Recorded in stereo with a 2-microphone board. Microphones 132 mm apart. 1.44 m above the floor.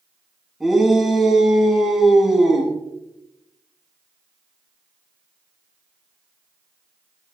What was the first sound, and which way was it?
A shout, centre (ahead or behind).